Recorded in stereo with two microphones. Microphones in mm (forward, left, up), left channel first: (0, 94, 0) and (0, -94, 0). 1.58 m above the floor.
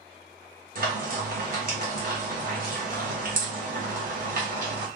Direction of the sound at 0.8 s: 50° right (ahead or behind).